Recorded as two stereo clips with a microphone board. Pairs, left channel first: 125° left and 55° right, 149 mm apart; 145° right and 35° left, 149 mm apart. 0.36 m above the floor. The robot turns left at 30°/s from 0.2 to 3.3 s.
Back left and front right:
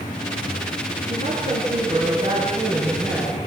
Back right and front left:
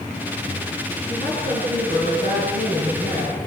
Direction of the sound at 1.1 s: 80° right.